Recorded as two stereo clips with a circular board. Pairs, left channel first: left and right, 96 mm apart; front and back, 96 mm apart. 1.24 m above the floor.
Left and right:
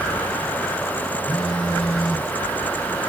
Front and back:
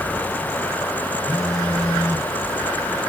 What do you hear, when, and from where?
1.3 s a phone buzzing: 85° left, 3 m